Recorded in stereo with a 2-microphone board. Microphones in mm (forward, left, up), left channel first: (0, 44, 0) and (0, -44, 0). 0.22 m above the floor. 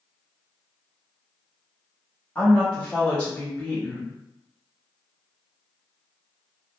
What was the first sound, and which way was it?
A woman speaking, 15° left (ahead or behind).